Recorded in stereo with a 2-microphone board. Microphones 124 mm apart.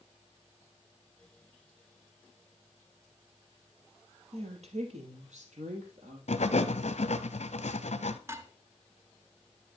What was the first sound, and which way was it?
A woman speaking, 60° right (ahead or behind).